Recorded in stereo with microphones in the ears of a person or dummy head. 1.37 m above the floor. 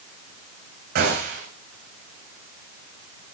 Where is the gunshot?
60° right (ahead or behind), 4 m.